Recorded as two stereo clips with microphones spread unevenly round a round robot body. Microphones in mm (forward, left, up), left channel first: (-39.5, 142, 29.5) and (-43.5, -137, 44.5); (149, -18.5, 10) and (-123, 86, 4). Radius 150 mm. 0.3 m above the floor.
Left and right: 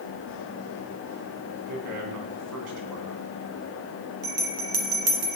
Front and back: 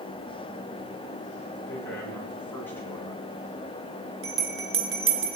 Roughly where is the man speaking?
Right.